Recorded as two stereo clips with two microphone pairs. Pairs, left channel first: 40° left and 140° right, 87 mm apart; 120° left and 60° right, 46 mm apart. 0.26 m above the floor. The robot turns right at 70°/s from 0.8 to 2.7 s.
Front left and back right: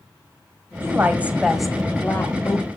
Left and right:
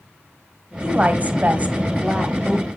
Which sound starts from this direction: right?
A woman speaking, at 0.8 s.